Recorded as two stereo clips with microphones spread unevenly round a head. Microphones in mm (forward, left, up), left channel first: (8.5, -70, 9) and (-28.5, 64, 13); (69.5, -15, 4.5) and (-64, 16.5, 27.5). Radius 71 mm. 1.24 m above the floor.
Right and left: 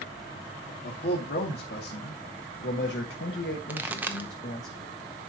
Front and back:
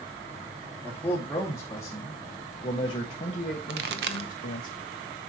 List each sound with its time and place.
0.8 s a man speaking: 90° right, 2.5 m; by 4.7 s 30° right, 1.1 m
3.7 s a pop: 175° right, 0.9 m